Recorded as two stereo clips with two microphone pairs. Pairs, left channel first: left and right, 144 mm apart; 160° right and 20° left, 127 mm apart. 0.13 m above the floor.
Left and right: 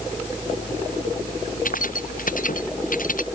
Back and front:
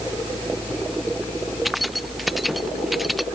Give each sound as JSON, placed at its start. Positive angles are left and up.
{"t": 1.6, "sound": "keys jangling", "azimuth_deg": 105}